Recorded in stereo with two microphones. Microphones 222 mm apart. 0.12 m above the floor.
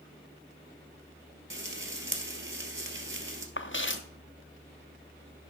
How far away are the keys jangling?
I don't hear keys jangling.